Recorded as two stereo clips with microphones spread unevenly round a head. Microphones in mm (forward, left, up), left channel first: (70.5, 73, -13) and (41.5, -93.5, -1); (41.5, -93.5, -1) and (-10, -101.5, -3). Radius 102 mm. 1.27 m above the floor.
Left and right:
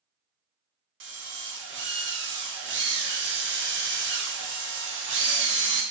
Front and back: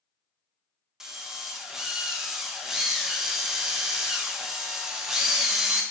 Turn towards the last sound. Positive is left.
turn(degrees=-90)